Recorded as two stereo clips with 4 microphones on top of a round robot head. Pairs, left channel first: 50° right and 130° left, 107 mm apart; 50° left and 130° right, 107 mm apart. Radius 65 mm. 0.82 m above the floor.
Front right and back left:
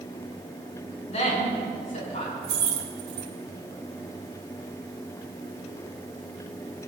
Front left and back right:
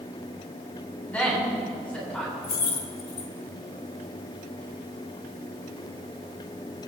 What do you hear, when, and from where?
1.1 s a woman speaking: 25° right, 7.5 m; by 2.3 s 30° right, 8 m
2.4 s keys jangling: 85° left, 1.8 m